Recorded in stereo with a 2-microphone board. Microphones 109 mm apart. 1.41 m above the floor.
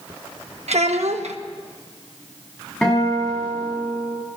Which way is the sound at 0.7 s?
75° right (ahead or behind).